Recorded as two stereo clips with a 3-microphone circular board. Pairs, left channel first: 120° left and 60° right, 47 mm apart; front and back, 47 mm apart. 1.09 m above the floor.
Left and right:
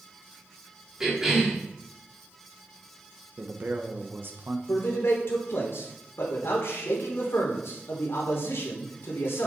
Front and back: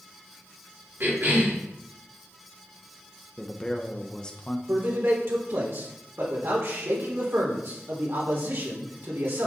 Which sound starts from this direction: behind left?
A man speaking, at 4.7 s.